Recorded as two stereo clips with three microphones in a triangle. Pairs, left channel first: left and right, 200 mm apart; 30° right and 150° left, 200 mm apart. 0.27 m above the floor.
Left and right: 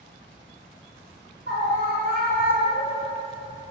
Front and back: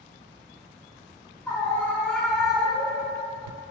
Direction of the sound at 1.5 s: 110° right.